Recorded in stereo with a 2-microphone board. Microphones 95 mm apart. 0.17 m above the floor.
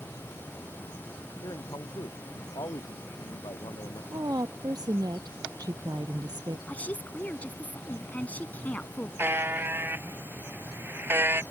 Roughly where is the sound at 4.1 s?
Right.